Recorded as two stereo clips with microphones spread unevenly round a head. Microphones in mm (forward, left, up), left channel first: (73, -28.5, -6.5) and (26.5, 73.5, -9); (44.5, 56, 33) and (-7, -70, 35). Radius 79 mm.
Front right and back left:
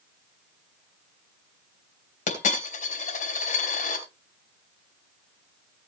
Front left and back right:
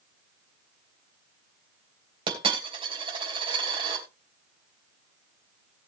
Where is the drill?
I don't hear a drill.